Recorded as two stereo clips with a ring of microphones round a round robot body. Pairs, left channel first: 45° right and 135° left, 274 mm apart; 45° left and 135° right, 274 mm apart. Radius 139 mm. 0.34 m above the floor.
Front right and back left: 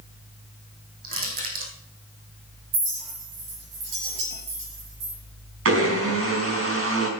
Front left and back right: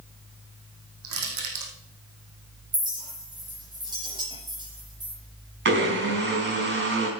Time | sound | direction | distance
1.0 | crushing | 165° right | 3 m
2.7 | a clink | 150° left | 4.5 m
5.7 | a blender | 175° left | 4 m